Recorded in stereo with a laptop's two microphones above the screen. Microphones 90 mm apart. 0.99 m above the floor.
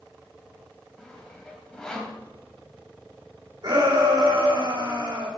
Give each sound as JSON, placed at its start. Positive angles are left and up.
{"t": 1.0, "sound": "sawing", "side_deg": 5, "distance_m": 2.0}
{"t": 3.6, "sound": "a shout", "side_deg": -65, "distance_m": 3.0}